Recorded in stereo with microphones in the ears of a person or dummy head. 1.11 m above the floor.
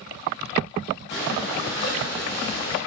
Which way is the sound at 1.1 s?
55° left (ahead or behind).